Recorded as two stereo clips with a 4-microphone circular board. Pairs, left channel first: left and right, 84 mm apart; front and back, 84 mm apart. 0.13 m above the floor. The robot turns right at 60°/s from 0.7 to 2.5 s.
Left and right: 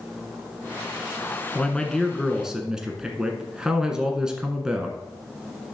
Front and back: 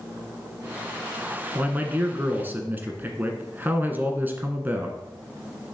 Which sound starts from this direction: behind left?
A man speaking, at 1.6 s.